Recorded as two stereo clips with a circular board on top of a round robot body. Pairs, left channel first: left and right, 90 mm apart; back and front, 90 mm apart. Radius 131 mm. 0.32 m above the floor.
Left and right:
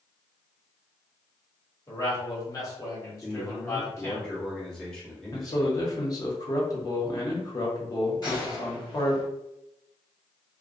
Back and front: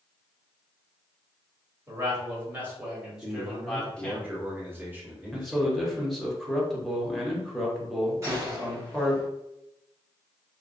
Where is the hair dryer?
I don't hear a hair dryer.